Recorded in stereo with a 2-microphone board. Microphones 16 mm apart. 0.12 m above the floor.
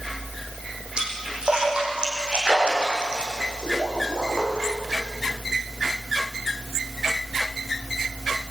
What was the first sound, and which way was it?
A splash, 75° right (ahead or behind).